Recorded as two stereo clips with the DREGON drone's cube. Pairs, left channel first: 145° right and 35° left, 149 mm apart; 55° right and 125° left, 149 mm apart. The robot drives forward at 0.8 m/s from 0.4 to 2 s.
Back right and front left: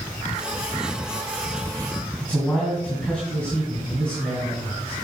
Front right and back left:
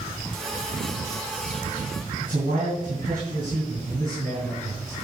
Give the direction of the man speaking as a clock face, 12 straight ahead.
8 o'clock.